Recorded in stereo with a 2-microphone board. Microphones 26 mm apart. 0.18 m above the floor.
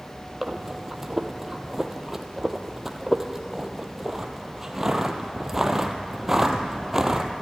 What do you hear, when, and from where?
0.4 s breathing: 15° right (ahead or behind), 1.6 m